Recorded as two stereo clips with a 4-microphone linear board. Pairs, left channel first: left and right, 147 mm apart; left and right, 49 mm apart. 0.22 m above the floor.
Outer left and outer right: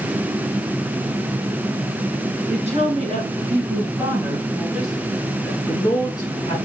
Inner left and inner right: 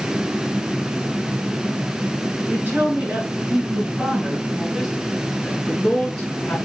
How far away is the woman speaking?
About 3 m.